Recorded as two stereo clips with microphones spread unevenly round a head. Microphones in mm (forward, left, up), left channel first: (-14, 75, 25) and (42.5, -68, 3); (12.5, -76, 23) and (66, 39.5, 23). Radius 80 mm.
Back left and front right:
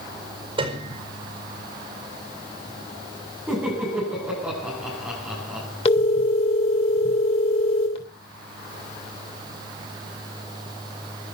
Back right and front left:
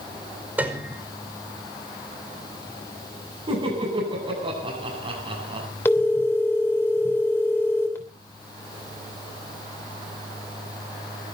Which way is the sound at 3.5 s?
15° left.